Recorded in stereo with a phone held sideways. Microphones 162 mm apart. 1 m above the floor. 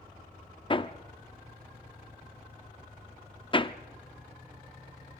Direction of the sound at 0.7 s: 30° left (ahead or behind).